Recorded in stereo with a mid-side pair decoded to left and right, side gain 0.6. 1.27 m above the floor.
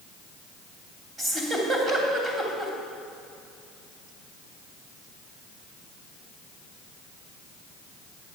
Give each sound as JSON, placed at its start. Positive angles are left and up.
{"t": 1.2, "sound": "a giggle", "azimuth_deg": -25, "distance_m": 3.0}